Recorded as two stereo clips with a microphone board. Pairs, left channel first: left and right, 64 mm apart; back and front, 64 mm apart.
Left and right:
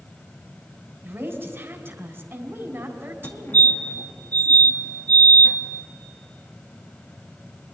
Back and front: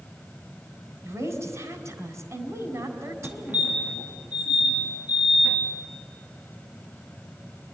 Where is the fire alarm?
55° left, 2 m.